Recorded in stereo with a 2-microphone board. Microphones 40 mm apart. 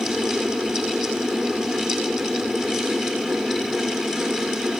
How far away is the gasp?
No gasp in this recording.